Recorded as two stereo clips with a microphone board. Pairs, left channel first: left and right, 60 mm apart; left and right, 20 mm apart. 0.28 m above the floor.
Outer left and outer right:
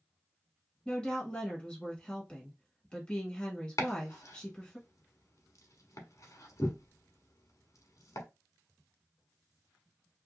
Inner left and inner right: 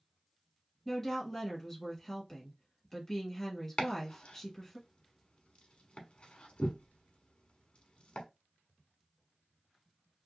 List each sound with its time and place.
0.8 s a woman speaking: 15° left (ahead or behind), 1.3 m
3.8 s chopping: 65° left (ahead or behind), 0.9 m